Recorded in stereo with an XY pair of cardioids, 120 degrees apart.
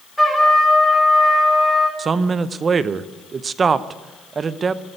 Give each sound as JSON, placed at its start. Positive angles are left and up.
{"t": 0.2, "sound": "a trumpet", "azimuth_deg": 5, "distance_m": 4.0}
{"t": 2.0, "sound": "a man speaking", "azimuth_deg": -35, "distance_m": 0.7}